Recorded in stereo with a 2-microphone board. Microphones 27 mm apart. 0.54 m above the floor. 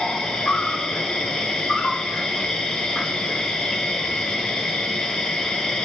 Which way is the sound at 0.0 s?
15° left (ahead or behind).